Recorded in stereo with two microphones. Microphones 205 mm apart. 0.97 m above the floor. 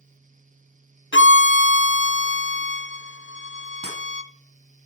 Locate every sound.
1.1 s a violin: 70° left (ahead or behind), 0.6 m
3.8 s breaking glass: 55° right (ahead or behind), 4 m